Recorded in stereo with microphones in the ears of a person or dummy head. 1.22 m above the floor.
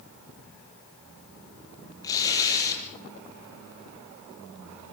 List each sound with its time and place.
2.0 s tearing paper: 20° left (ahead or behind), 8 m